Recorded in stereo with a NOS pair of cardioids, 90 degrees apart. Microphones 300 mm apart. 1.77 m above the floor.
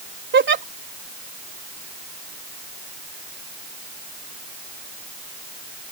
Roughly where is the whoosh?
No whoosh in this recording.